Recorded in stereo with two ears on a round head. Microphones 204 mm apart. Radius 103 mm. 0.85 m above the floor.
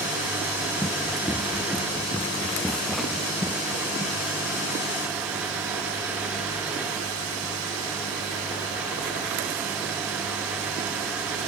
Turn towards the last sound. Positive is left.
turn(degrees=-10)  # may be behind; listen again after turning